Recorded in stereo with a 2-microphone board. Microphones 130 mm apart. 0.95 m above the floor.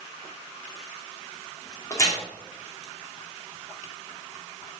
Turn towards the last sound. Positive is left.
turn(degrees=25)  # may be behind; listen again after turning